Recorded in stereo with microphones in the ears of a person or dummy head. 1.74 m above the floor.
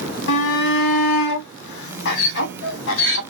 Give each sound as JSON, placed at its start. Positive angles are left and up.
{"t": 0.3, "sound": "a shout", "side_deg": 65, "distance_m": 1.2}